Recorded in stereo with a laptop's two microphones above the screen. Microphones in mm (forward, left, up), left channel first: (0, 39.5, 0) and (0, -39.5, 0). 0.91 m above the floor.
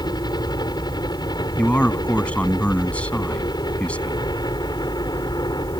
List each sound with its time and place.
0.0 s a helicopter: 55° left (ahead or behind)
1.6 s a man speaking: 15° left (ahead or behind)